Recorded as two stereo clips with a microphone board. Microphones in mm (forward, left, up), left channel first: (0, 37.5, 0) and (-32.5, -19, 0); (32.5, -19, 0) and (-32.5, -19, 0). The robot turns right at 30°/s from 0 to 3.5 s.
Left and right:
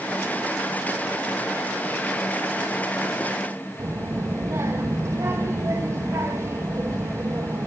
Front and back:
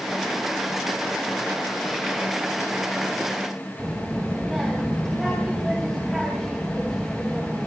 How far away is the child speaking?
About 2 m.